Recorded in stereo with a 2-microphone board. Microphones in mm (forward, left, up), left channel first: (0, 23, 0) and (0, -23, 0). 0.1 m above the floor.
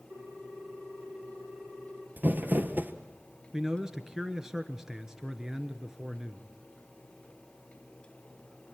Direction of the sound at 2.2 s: 45° right (ahead or behind).